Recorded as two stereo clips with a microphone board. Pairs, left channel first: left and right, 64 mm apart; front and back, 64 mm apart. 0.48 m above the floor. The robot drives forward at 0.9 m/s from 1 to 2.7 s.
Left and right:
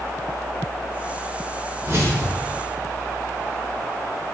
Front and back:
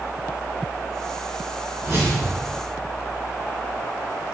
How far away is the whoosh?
About 2.5 m.